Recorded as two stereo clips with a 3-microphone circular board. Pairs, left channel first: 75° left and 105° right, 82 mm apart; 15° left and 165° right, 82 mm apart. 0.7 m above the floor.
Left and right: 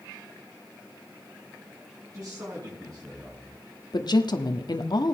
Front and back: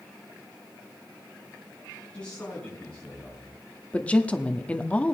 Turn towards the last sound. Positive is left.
turn(degrees=85)